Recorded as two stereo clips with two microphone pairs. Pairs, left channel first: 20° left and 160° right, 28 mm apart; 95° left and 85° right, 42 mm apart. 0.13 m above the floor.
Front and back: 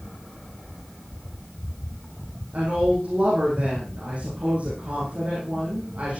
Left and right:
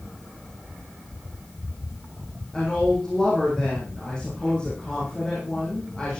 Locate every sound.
2.5 s a woman speaking: 160° left, 7.5 m